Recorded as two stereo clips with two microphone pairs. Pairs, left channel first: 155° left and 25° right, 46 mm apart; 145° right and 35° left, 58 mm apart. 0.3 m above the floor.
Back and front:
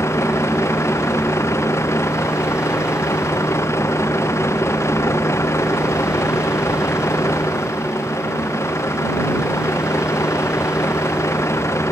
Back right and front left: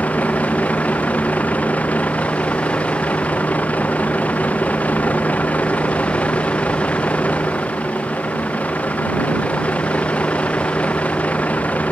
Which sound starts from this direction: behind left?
A vehicle, at 0.0 s.